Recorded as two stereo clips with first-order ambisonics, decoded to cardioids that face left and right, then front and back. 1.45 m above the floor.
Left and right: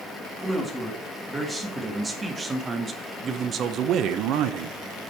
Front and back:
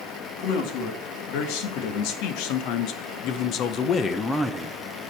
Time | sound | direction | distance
0.4 | a man speaking | 5° right | 2 m